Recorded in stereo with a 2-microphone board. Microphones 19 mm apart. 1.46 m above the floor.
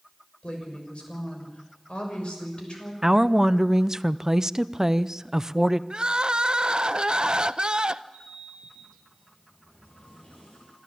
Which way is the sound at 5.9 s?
45° right (ahead or behind).